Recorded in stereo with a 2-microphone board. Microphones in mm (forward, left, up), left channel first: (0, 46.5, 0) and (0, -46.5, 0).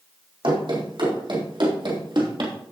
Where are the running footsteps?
70° right (ahead or behind), 4.5 m; by 2.5 s 65° right (ahead or behind), 3 m.